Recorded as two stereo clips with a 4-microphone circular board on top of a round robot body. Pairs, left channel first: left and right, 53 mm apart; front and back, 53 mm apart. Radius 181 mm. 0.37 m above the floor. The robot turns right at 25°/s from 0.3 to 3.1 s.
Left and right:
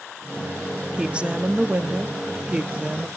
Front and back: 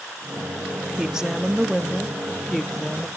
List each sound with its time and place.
1.0 s a woman speaking: 125° right, 0.9 m; by 3.1 s 70° right, 0.9 m